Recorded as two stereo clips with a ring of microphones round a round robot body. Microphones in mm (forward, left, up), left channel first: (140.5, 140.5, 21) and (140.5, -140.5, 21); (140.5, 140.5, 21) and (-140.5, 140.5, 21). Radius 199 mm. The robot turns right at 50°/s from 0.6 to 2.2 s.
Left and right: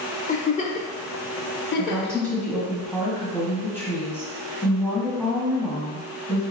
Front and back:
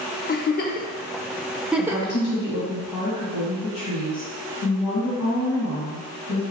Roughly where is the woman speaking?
Ahead right.